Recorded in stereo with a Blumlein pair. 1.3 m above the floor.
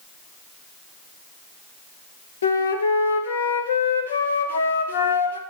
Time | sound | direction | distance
2.4 | a flute | 70° left | 0.7 m